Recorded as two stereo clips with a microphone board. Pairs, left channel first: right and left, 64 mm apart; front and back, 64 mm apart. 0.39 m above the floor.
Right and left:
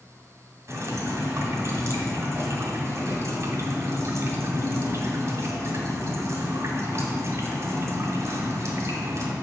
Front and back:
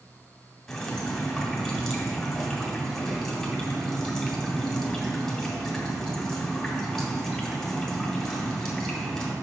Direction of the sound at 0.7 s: 85° left.